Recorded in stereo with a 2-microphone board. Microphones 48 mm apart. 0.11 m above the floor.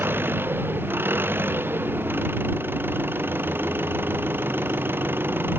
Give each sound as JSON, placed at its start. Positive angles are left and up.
{"t": 0.0, "sound": "an engine running", "side_deg": -50}